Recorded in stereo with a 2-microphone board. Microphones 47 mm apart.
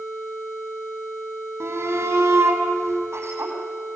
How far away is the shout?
About 6.5 m.